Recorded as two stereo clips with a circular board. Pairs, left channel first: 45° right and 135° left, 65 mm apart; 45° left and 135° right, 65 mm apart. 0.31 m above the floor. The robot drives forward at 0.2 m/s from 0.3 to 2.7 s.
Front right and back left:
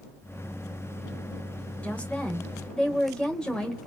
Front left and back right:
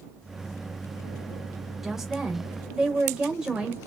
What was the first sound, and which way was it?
A woman speaking, 55° right.